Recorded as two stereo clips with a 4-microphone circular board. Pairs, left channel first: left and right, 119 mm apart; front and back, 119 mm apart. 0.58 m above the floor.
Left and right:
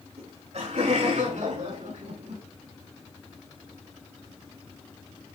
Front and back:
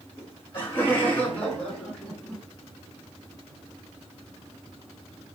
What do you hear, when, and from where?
0.2 s laughter: 65° right, 6.5 m; by 2.4 s 85° right, 6.5 m